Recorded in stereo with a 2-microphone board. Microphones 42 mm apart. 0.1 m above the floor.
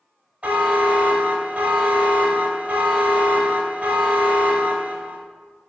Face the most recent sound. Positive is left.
turn(degrees=-35)  # may be behind; listen again after turning